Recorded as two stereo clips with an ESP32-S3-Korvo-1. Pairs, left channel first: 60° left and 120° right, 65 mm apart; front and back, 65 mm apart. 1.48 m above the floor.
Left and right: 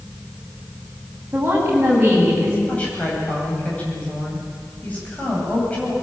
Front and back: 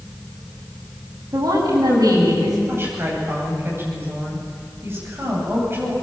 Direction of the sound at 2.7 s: 125° left.